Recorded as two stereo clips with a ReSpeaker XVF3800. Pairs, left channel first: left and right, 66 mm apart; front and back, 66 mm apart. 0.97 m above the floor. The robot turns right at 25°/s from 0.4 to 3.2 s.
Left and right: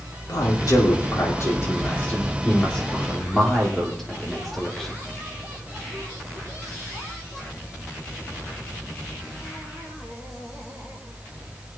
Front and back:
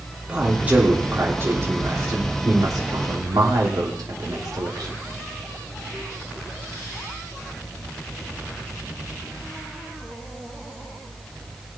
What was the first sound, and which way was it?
A man speaking, 105° left.